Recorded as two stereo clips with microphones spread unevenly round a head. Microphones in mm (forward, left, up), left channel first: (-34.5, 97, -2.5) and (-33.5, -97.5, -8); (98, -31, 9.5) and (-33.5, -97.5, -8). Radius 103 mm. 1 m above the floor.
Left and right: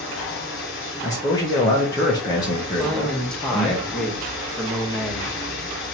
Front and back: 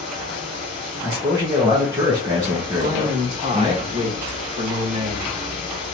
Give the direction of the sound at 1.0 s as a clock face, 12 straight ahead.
7 o'clock.